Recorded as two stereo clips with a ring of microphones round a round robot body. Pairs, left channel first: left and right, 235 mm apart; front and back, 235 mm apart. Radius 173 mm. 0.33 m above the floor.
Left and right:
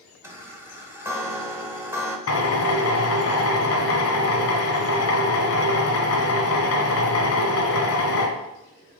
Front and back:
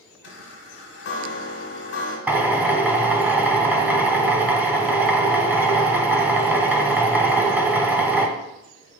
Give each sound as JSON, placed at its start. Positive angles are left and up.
{"t": 0.2, "sound": "a chime", "azimuth_deg": -10, "distance_m": 0.9}
{"t": 2.3, "sound": "a drill", "azimuth_deg": 95, "distance_m": 0.8}